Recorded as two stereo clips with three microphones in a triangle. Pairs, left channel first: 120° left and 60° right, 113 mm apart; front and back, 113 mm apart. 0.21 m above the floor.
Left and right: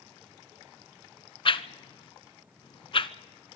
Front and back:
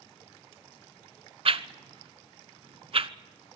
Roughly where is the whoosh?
Behind left.